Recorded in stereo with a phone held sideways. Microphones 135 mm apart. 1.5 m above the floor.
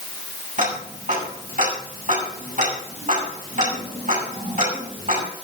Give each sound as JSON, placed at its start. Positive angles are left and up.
{"t": 0.6, "sound": "ticking", "side_deg": -75, "distance_m": 8.5}